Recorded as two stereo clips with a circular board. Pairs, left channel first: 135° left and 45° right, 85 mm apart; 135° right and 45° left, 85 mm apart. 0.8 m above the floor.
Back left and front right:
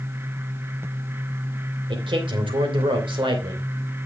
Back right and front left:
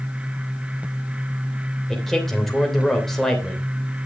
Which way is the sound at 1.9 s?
50° right.